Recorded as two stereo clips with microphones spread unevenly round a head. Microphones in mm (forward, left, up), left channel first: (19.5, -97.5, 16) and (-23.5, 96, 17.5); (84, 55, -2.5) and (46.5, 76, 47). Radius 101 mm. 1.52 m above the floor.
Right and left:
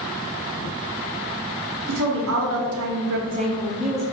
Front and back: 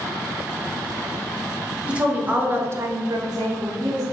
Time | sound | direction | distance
1.9 | a woman speaking | 75° left | 1.1 m